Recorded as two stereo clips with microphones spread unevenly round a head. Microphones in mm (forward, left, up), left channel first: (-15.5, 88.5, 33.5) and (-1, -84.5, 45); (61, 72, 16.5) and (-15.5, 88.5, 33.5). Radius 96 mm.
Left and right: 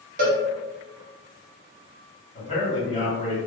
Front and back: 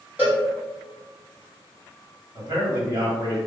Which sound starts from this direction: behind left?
A man speaking, at 2.4 s.